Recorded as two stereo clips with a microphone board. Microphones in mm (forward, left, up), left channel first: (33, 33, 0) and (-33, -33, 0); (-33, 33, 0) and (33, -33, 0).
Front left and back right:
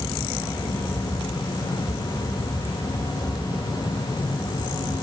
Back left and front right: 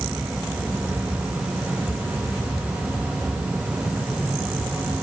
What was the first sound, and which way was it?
Only background noise.